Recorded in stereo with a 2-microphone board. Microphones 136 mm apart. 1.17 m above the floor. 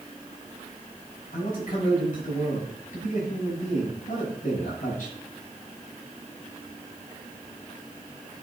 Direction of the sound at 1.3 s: 70° left (ahead or behind).